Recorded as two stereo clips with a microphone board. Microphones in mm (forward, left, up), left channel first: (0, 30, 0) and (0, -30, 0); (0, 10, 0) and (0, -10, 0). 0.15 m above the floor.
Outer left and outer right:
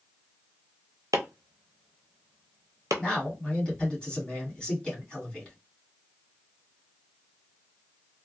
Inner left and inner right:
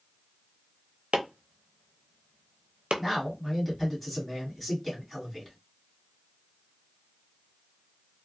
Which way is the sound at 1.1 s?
85° right.